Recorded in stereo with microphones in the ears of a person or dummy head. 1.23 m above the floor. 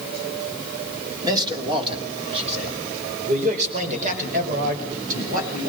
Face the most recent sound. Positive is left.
turn(degrees=-50)  # may be behind; listen again after turning